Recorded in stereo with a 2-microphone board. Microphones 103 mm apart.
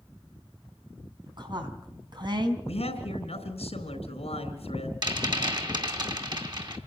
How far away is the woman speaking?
About 3.5 m.